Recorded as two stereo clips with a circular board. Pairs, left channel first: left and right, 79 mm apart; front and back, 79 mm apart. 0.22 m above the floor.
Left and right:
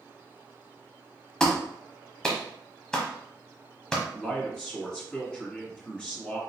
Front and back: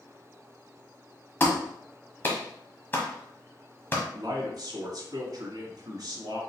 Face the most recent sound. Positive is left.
turn(degrees=165)